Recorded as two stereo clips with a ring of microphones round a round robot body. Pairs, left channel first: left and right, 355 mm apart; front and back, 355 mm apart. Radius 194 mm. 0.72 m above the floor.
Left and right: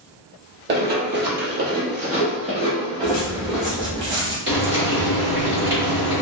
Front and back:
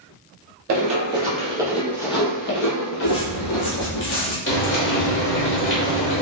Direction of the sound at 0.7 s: 145° right.